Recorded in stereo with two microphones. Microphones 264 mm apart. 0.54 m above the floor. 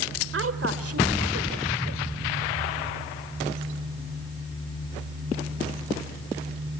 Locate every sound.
0.3 s a woman speaking: 50° right (ahead or behind), 2.0 m; by 2.0 s 70° right (ahead or behind), 2.5 m